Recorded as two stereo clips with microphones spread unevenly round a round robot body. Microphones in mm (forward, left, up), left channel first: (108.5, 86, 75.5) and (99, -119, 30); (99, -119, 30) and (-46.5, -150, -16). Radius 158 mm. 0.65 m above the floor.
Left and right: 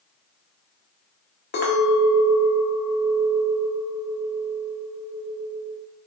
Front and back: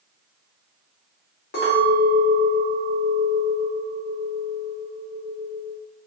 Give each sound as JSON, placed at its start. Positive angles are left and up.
{"t": 1.5, "sound": "a clink", "azimuth_deg": 45, "distance_m": 0.8}